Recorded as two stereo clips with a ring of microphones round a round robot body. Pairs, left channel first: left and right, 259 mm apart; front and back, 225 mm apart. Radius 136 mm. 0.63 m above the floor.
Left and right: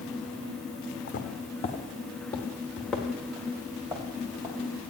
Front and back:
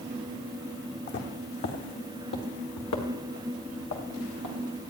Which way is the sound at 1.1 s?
35° left.